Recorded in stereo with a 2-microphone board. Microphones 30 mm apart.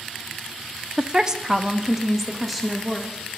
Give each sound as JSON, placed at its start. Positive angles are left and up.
{"t": 1.0, "sound": "a woman speaking", "side_deg": -35, "distance_m": 0.6}